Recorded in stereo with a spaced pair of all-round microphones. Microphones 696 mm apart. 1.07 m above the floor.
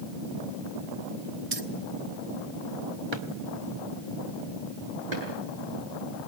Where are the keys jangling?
55° right (ahead or behind), 1.2 m.